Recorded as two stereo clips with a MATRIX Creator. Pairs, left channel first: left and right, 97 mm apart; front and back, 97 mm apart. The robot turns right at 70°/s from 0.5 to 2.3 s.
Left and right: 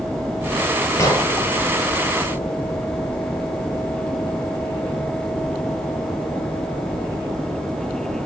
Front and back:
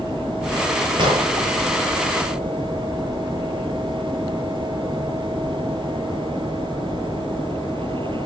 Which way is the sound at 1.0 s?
145° left.